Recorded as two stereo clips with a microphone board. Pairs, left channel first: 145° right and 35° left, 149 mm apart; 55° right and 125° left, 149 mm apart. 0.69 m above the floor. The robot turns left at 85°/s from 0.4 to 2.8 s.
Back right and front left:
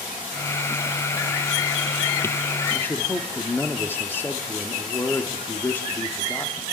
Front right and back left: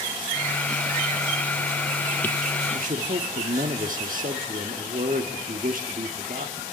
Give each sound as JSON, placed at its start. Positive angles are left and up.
{"t": 2.7, "sound": "a man speaking", "azimuth_deg": 145, "distance_m": 1.4}